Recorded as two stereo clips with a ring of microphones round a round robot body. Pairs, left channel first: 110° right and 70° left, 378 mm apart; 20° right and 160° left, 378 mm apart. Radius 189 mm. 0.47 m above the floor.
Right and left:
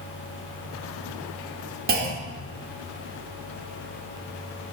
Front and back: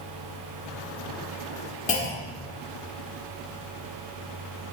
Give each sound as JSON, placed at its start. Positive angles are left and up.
{"t": 1.9, "sound": "a clunk", "azimuth_deg": 30, "distance_m": 1.2}